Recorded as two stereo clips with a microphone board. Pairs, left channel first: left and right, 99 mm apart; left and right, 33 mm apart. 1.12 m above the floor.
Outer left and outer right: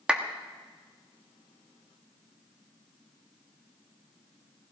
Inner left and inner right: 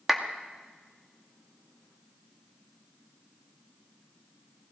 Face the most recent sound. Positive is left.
turn(degrees=-10)  # may be behind; listen again after turning